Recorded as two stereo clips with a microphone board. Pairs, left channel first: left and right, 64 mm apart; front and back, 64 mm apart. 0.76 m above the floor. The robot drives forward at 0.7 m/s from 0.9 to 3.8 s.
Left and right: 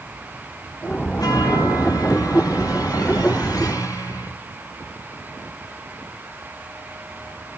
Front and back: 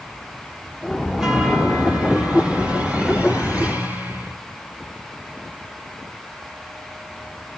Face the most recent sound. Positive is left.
turn(degrees=115)